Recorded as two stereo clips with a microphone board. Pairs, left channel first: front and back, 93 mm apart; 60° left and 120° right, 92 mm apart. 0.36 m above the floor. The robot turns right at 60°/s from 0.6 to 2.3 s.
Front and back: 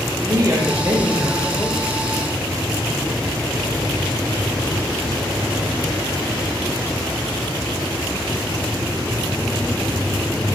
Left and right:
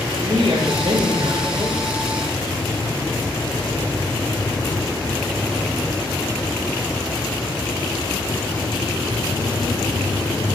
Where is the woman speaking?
130° right, 9 m; by 1.8 s 55° right, 9 m.